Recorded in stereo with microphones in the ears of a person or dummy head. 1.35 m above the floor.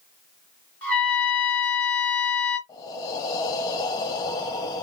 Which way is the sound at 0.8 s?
5° left (ahead or behind).